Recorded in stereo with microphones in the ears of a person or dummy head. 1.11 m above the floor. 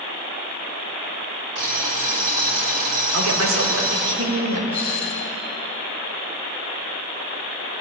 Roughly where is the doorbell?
Centre.